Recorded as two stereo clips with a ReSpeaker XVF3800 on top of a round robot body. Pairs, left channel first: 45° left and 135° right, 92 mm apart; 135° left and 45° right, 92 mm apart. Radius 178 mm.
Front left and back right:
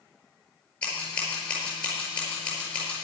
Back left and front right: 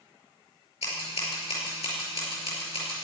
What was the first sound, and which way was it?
Scissors, 125° left.